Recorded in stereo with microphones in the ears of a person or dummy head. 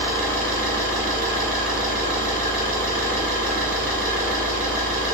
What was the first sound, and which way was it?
An engine running, 50° right (ahead or behind).